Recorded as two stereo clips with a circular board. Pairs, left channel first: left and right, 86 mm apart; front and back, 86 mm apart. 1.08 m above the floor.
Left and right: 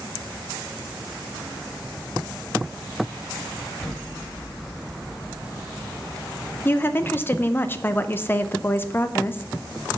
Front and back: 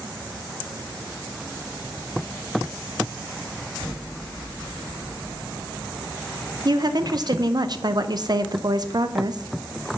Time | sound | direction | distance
3.8 | an explosion | 165° left | 3 m
6.7 | a woman speaking | 155° left | 0.5 m